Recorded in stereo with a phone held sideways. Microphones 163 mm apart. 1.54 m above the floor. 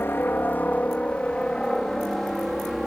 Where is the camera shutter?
No camera shutter in this recording.